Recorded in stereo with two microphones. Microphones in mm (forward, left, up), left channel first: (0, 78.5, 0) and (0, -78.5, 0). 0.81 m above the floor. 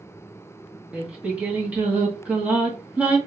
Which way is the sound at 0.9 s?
10° right (ahead or behind).